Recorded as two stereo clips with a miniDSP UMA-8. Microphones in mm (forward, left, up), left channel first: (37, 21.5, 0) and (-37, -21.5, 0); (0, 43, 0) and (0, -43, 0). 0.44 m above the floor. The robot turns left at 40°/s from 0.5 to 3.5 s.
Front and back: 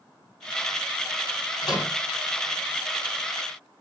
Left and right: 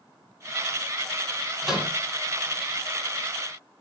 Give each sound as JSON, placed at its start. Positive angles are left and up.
{"t": 1.6, "sound": "a microwave", "azimuth_deg": 0, "distance_m": 2.5}